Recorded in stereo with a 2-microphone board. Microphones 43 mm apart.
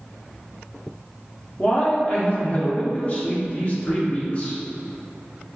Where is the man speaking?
30° left (ahead or behind), 0.9 m.